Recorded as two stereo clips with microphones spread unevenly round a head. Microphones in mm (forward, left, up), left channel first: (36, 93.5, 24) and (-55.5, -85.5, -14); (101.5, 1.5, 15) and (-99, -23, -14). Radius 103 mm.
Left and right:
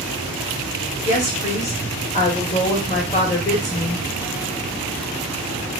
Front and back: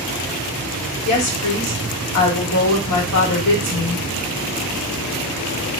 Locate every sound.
1.1 s a woman speaking: straight ahead, 1.2 m